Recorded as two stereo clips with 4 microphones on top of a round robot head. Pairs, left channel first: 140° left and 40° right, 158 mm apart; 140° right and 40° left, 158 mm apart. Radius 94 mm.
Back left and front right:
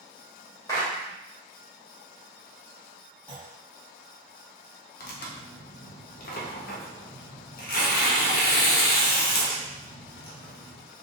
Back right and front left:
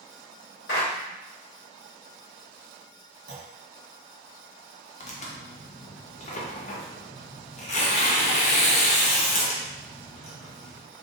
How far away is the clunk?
About 1.3 m.